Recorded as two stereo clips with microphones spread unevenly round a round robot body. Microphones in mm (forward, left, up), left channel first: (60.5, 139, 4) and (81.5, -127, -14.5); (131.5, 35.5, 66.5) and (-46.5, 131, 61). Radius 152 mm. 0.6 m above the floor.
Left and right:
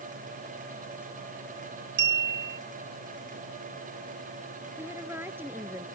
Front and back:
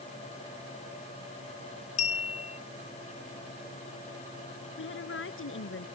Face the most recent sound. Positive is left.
turn(degrees=-5)